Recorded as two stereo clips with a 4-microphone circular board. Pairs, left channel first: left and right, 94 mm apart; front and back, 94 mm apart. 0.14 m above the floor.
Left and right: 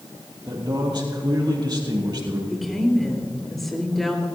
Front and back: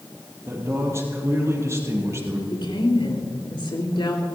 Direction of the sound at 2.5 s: Straight ahead.